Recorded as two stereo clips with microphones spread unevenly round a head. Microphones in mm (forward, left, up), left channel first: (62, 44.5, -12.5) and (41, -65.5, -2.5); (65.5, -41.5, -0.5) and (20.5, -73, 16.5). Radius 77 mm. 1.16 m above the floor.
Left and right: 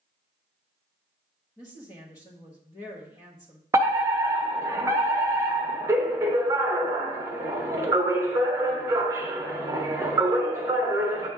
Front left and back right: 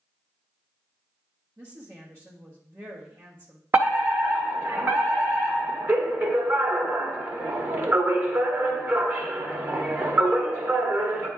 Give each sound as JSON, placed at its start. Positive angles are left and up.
{"t": 1.6, "sound": "a woman speaking", "azimuth_deg": 145, "distance_m": 1.2}
{"t": 3.7, "sound": "a fire alarm", "azimuth_deg": -120, "distance_m": 1.1}